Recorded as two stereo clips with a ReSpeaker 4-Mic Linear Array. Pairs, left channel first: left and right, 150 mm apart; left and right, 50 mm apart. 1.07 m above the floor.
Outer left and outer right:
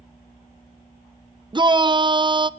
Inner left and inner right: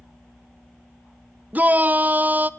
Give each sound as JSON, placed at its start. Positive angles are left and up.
{"t": 1.5, "sound": "a shout", "side_deg": -30, "distance_m": 0.7}